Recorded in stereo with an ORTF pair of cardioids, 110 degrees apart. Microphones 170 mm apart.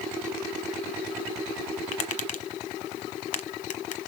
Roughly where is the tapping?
Ahead left.